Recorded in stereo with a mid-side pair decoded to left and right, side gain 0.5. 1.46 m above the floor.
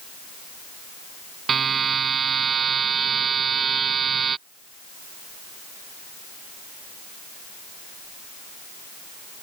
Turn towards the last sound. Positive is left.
turn(degrees=-40)